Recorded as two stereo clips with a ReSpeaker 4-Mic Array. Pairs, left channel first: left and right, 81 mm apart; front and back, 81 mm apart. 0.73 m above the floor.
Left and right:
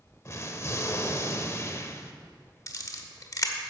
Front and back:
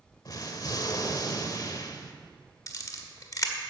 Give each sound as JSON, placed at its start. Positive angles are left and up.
{"t": 0.2, "sound": "an explosion", "azimuth_deg": 40, "distance_m": 0.9}
{"t": 2.7, "sound": "a camera shutter", "azimuth_deg": 45, "distance_m": 1.2}